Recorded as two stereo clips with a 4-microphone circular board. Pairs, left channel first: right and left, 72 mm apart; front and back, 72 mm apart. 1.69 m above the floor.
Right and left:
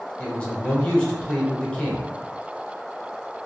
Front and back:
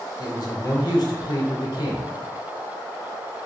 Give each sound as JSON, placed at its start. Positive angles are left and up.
{"t": 0.2, "sound": "a man speaking", "azimuth_deg": -15, "distance_m": 0.8}